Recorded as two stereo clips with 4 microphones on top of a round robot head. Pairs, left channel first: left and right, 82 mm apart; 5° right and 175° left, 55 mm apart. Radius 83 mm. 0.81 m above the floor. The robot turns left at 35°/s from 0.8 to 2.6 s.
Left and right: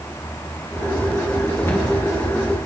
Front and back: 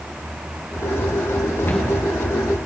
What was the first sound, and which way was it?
A cupboard door, 35° left.